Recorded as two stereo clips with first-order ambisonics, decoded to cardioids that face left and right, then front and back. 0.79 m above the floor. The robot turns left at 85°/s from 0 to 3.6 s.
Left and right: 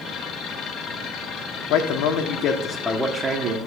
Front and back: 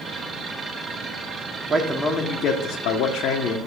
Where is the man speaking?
110° left, 1.4 m; by 3.6 s 50° right, 1.4 m.